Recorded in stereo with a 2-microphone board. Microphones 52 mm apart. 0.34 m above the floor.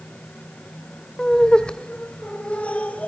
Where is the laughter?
15° left (ahead or behind), 1.1 m; by 3.1 s 25° left (ahead or behind), 2.0 m.